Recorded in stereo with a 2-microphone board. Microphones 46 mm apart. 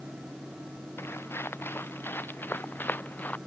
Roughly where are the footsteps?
Left.